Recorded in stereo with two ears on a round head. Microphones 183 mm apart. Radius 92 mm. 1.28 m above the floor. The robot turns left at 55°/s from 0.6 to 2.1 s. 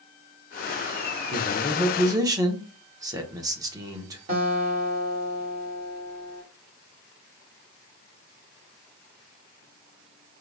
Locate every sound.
1.3 s a man speaking: 25° left, 0.7 m; by 4.2 s 15° right, 0.7 m
4.3 s a guitar: 40° right (ahead or behind), 1.4 m